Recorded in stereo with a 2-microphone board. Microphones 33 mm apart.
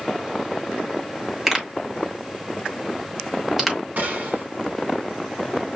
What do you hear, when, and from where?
1.5 s a pop: 5° right (ahead or behind), 1.4 m
4.0 s a gunshot: 50° right (ahead or behind), 1.4 m